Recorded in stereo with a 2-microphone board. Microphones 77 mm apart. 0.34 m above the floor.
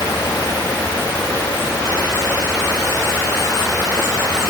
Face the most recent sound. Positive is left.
No sound to turn to.